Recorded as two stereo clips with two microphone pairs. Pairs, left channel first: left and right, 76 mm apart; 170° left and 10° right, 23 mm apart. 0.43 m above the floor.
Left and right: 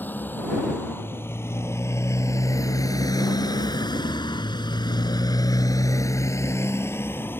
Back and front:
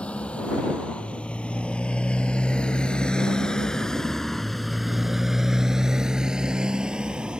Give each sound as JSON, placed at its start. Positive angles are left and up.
{"t": 0.0, "sound": "a motorcycle", "azimuth_deg": 155}